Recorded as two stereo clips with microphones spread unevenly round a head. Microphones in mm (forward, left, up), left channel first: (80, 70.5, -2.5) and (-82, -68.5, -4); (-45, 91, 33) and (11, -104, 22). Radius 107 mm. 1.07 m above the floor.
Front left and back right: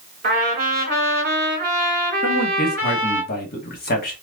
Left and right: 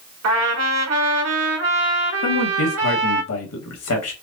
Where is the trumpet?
90° right, 1.7 m.